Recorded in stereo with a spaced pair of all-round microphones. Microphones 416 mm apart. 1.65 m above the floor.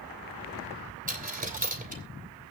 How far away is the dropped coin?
About 3 m.